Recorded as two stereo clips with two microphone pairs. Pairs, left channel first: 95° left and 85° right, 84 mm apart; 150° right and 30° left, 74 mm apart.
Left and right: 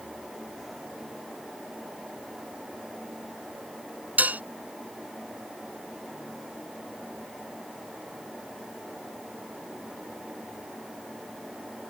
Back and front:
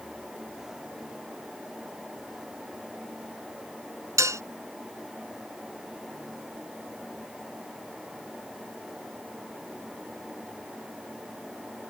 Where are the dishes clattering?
15° right.